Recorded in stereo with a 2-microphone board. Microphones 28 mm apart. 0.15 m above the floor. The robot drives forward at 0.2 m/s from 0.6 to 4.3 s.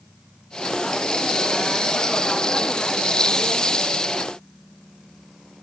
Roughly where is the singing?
I don't hear singing.